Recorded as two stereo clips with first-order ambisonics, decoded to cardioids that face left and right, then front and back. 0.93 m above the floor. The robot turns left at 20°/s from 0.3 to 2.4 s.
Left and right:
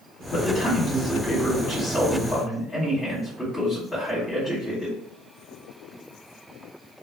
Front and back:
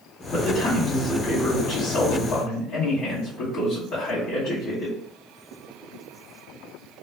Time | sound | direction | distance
0.3 | a man speaking | 45° left | 1.2 m